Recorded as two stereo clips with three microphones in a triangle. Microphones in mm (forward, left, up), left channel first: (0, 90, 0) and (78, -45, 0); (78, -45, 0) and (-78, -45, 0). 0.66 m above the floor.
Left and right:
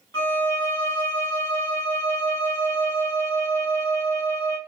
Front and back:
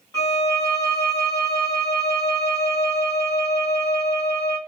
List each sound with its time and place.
0.1 s a violin: 60° left, 1.6 m